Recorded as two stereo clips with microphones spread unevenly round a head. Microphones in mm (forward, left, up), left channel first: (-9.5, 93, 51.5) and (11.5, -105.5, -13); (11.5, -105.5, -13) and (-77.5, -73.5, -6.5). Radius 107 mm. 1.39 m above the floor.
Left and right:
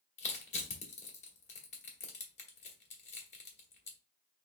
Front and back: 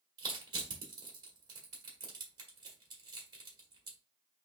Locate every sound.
0.2 s crushing: 120° left, 1.5 m